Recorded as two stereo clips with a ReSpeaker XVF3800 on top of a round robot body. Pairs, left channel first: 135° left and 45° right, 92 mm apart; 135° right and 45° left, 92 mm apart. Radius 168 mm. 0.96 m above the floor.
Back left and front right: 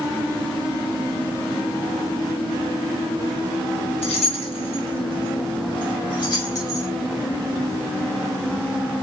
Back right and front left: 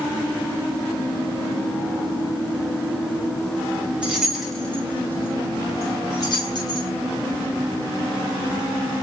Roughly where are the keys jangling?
Behind left.